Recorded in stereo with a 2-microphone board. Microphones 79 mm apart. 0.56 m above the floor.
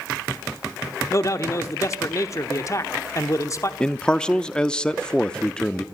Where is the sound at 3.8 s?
10° left (ahead or behind), 0.6 m.